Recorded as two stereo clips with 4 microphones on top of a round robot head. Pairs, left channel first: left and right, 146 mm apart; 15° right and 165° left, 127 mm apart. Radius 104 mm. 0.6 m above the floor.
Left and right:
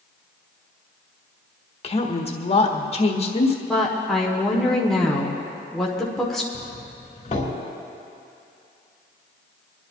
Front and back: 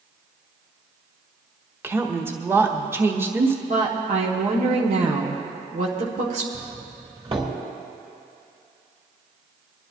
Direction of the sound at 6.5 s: 125° left.